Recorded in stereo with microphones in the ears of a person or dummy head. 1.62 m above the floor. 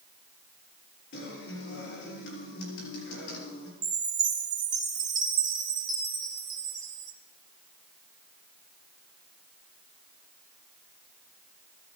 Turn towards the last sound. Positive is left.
turn(degrees=-15)  # may be behind; listen again after turning